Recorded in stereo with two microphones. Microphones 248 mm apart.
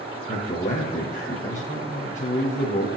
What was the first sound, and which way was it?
A man speaking, 30° left (ahead or behind).